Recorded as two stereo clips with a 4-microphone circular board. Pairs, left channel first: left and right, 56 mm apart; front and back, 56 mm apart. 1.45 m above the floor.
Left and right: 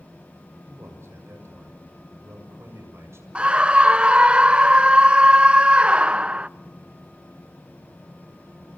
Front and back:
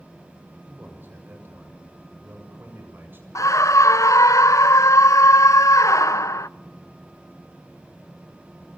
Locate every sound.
0.7 s a man speaking: 130° right, 7.5 m
3.4 s a scream: 20° right, 0.7 m